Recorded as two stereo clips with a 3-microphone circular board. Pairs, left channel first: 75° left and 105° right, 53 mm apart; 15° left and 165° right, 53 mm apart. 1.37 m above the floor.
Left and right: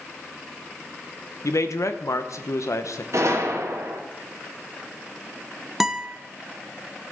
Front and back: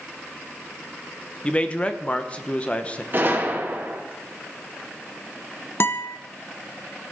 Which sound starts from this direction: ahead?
A guitar, at 5.8 s.